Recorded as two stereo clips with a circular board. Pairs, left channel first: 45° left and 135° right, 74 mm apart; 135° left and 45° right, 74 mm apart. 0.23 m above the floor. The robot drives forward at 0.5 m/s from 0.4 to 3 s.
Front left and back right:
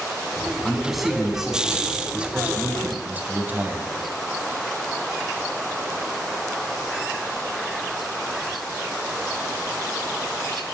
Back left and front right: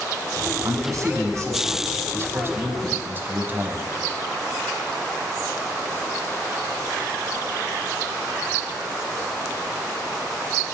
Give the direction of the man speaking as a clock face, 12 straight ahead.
1 o'clock.